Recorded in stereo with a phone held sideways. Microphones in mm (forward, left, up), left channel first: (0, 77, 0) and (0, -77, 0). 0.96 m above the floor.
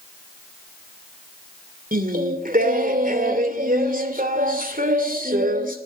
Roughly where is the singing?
Right.